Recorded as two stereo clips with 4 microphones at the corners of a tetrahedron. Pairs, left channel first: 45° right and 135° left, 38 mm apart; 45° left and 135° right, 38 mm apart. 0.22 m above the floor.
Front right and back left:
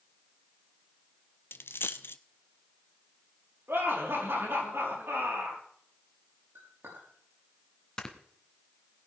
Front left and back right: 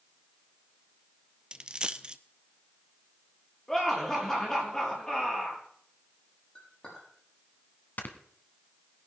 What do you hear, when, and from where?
1.5 s a dropped coin: 65° right, 0.6 m
3.7 s laughter: 125° left, 5.5 m
6.5 s a clink: 110° left, 7 m
8.0 s snoring: 20° left, 1.4 m